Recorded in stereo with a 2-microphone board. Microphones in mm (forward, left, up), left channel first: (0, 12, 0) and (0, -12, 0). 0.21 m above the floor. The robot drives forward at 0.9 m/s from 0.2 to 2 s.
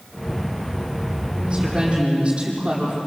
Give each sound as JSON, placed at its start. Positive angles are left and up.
{"t": 1.4, "sound": "a woman speaking", "side_deg": -30, "distance_m": 9.5}